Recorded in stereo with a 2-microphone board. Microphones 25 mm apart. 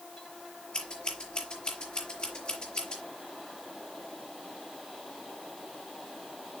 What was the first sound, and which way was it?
Scissors, 40° left (ahead or behind).